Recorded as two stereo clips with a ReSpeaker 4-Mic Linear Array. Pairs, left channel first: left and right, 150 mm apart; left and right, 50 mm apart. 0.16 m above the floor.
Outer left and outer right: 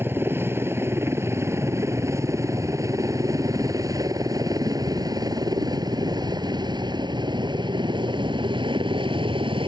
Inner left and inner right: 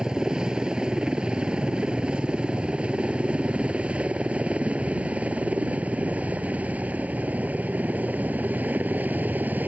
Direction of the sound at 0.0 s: 15° right (ahead or behind).